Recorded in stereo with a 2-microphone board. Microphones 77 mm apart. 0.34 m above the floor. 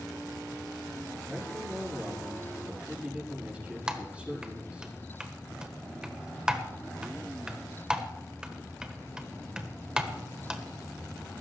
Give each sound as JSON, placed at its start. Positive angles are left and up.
{"t": 1.3, "sound": "a man speaking", "side_deg": -15, "distance_m": 6.0}
{"t": 3.9, "sound": "typing on a keyboard", "side_deg": -10, "distance_m": 1.4}